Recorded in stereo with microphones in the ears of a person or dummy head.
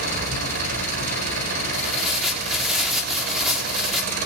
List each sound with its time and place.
0.0 s an engine running: 60° right (ahead or behind), 4 m
1.7 s tearing paper: 5° right (ahead or behind), 3.5 m